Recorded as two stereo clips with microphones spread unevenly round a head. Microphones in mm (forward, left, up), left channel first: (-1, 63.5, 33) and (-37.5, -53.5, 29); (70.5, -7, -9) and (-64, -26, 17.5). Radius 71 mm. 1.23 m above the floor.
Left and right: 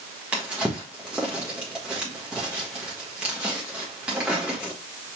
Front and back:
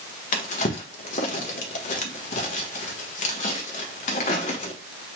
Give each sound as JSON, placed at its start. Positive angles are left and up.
{"t": 0.3, "sound": "a drawer", "azimuth_deg": -25, "distance_m": 1.3}